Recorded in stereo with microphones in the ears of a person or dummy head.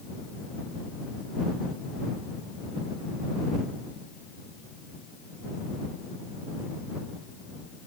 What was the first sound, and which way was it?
Only background noise.